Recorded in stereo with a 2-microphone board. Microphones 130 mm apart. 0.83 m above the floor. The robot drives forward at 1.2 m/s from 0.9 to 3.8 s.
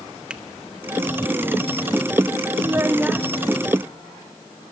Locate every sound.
0.3 s a finger snap: 10° right (ahead or behind), 1.1 m
2.6 s a child speaking: 25° right (ahead or behind), 0.6 m; by 3.3 s 10° right (ahead or behind), 1.3 m